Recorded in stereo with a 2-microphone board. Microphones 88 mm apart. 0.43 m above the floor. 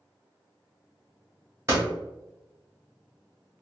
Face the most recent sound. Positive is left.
turn(degrees=-30)  # may be behind; listen again after turning